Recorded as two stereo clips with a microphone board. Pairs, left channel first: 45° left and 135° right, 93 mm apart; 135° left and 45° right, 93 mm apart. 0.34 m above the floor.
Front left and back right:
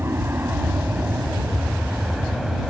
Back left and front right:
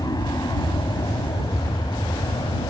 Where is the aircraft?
165° left; by 2.7 s 135° left.